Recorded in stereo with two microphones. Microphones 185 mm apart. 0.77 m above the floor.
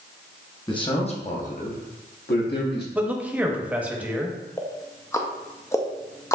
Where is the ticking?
15° left (ahead or behind), 0.5 m.